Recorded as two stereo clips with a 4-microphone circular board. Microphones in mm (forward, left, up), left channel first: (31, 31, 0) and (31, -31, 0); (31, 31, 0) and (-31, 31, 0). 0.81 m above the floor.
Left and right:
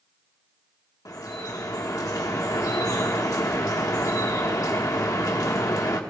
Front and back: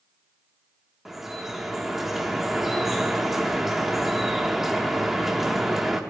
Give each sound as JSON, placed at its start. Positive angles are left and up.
{"t": 1.1, "sound": "dripping", "azimuth_deg": 95, "distance_m": 1.4}